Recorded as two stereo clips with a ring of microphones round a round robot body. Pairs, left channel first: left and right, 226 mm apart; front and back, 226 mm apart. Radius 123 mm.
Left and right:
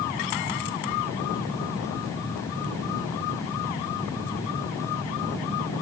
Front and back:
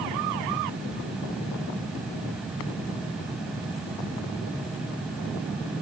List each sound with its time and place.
Only background noise.